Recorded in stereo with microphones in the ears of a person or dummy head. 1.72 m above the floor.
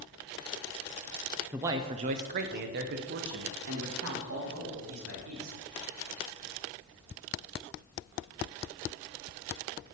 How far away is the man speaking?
About 0.5 m.